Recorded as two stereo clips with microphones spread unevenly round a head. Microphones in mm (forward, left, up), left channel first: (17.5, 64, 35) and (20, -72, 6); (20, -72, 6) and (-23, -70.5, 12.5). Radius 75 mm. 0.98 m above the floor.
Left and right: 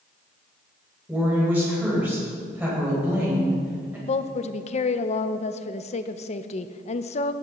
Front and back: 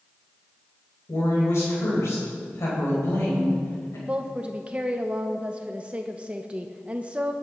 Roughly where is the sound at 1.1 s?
Ahead.